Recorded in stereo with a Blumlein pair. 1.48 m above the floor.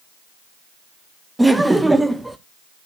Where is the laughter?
5° right, 0.6 m.